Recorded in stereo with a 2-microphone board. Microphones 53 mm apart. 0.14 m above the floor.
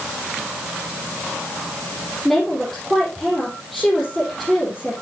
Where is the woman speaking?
5° left (ahead or behind), 4.5 m.